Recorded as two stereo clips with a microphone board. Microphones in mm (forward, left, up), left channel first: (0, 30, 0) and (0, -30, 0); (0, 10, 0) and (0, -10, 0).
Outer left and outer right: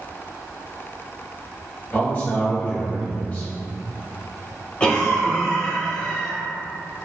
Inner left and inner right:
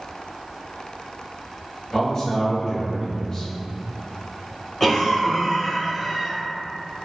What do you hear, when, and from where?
1.9 s a man speaking: 30° left (ahead or behind), 1.3 m
4.8 s a cough: 20° left (ahead or behind), 1.1 m